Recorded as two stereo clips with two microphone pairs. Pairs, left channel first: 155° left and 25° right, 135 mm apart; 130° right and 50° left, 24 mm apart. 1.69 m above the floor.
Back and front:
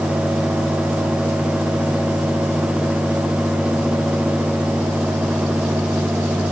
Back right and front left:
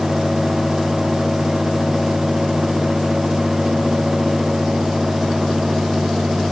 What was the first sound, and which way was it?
Only background noise.